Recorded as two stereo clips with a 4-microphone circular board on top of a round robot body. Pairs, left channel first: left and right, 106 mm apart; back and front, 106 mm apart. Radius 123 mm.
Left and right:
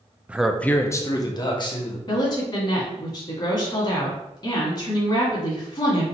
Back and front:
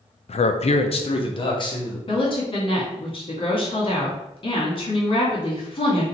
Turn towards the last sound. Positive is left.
turn(degrees=140)